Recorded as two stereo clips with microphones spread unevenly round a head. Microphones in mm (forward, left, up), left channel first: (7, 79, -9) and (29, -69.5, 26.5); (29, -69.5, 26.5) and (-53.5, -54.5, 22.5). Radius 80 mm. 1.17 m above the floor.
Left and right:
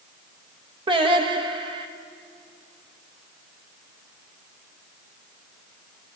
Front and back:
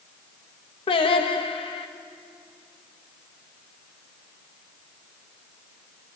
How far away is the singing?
About 1.0 m.